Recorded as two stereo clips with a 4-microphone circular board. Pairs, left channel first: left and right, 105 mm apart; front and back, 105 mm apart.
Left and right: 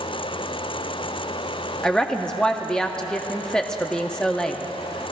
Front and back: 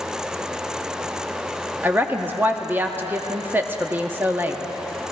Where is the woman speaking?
160° left, 0.5 m.